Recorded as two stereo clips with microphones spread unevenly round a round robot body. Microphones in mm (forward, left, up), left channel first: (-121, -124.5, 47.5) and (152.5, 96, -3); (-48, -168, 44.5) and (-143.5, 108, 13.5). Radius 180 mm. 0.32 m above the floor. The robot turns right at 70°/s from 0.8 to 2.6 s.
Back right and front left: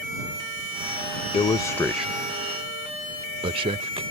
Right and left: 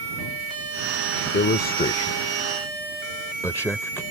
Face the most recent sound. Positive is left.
turn(degrees=15)